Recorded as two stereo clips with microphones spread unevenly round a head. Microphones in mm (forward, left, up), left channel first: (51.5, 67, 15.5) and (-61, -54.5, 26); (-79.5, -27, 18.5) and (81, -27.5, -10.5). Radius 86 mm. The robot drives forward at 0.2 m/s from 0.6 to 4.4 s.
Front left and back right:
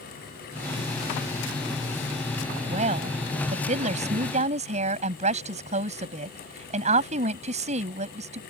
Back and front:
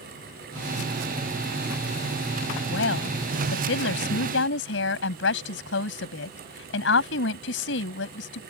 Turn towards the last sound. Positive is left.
turn(degrees=175)